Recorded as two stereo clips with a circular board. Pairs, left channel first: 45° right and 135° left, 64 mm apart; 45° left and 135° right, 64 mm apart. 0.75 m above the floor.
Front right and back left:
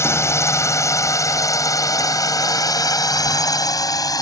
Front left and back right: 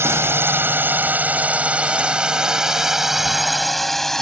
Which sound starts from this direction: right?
A drone, at 0.0 s.